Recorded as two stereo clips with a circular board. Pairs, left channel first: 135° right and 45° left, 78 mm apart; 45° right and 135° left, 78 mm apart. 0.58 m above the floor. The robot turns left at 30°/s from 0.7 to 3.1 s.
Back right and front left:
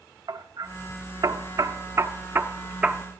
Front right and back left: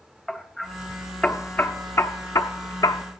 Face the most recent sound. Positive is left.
turn(degrees=-30)